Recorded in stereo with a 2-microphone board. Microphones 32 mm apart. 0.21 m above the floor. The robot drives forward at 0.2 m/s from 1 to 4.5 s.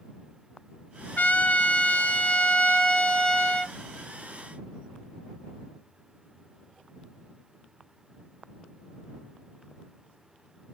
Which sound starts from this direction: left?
A trumpet, at 1.2 s.